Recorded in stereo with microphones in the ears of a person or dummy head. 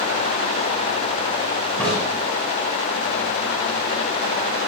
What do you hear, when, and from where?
1.8 s a crack: 5° left (ahead or behind), 4.5 m